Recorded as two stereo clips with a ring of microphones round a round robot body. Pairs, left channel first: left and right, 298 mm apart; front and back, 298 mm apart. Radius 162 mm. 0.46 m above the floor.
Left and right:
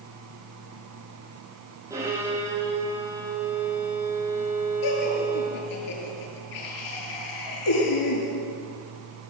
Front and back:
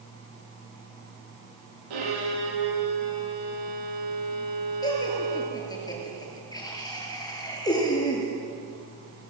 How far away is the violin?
About 7.5 m.